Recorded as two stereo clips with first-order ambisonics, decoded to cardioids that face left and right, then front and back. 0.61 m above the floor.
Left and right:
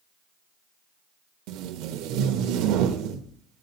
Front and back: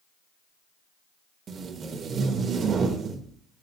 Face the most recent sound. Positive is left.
turn(degrees=-115)